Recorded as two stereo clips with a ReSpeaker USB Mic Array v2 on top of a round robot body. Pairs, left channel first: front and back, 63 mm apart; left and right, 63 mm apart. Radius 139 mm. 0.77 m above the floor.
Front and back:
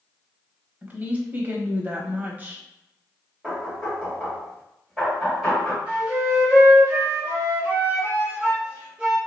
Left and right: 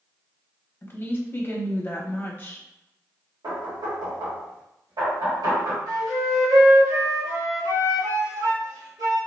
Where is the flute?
110° right, 0.9 m.